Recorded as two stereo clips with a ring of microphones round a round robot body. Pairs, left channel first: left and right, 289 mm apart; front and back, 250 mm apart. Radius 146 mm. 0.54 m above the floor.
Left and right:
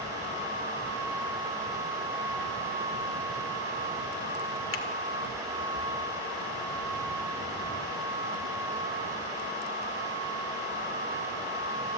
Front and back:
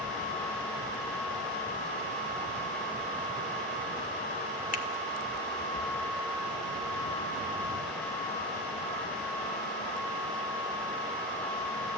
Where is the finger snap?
55° left, 1.9 m.